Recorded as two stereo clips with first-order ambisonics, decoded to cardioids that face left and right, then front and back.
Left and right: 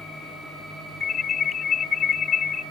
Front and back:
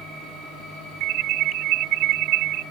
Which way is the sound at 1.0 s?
150° left.